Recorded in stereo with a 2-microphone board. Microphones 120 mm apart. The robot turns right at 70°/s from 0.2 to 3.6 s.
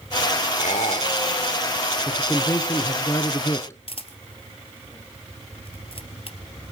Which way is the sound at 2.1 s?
10° left (ahead or behind).